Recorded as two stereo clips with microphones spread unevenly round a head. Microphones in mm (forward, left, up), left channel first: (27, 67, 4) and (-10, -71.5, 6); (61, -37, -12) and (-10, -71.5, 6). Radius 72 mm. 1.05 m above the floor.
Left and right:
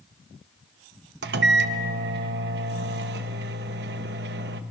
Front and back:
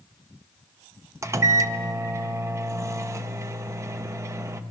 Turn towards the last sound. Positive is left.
turn(degrees=-100)